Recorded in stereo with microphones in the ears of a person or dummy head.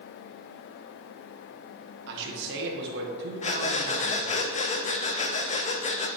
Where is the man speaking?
60° right (ahead or behind), 1.6 m.